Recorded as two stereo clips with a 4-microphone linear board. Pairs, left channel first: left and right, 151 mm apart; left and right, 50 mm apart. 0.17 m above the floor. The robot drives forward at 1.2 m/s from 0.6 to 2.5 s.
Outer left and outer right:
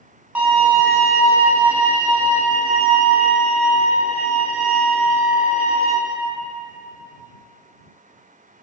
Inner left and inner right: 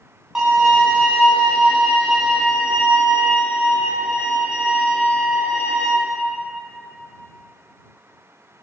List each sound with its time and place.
0.3 s a violin: 10° right (ahead or behind), 1.5 m